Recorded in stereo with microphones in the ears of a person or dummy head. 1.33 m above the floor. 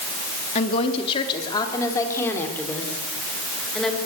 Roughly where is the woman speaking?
Left.